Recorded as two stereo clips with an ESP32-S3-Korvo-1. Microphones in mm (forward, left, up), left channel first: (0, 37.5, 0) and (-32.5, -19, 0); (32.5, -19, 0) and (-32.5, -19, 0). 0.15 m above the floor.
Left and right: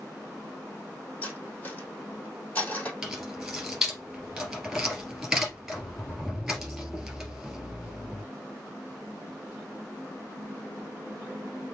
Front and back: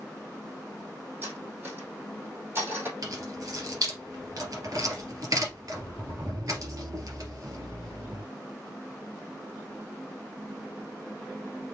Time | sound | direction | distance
1.2 | cutlery clinking | 125° left | 3.5 m
3.0 | keys jangling | 155° left | 2 m